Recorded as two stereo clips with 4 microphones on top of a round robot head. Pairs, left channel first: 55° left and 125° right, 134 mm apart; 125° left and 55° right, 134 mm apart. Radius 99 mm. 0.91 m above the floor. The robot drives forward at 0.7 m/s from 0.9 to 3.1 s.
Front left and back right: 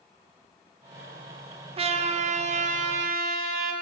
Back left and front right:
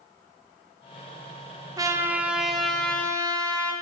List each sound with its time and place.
1.8 s a trumpet: 105° right, 0.7 m; by 3.7 s 155° right, 1.3 m